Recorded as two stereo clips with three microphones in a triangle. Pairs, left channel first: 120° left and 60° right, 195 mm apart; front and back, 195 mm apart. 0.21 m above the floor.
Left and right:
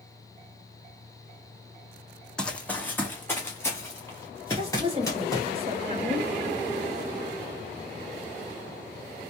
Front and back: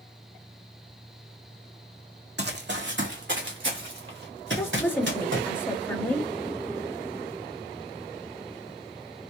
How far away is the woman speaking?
About 1.1 m.